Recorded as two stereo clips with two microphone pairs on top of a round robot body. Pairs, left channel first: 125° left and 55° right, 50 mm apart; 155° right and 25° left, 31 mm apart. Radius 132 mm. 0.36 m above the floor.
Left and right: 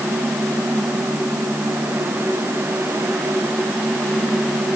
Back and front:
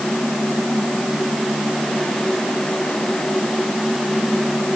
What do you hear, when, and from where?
Only background noise.